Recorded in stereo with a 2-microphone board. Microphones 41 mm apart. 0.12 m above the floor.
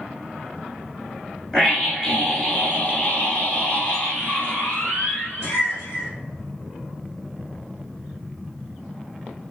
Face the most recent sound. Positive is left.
turn(degrees=55)  # may be behind; listen again after turning